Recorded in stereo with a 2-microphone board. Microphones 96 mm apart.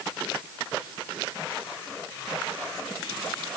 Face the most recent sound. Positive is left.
No sound to turn to.